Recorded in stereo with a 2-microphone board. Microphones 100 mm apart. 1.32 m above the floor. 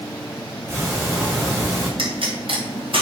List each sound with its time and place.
0.7 s ticking: 30° right (ahead or behind), 4.5 m
2.0 s a pop: 60° right (ahead or behind), 3.5 m